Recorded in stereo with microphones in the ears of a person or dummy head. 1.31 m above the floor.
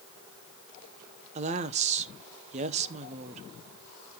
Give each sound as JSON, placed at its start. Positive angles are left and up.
{"t": 1.4, "sound": "a woman speaking", "side_deg": -35, "distance_m": 0.9}